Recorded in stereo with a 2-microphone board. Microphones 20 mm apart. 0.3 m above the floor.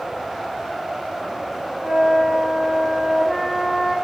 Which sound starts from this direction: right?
A flute, at 1.8 s.